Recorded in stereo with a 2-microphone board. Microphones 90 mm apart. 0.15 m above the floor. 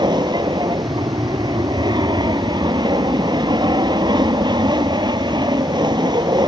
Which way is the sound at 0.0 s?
55° right (ahead or behind).